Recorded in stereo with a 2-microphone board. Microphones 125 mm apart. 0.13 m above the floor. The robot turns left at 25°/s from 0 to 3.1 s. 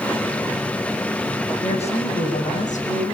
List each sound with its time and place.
1.6 s a woman speaking: 130° left, 6.5 m; by 3.1 s 90° left, 6.5 m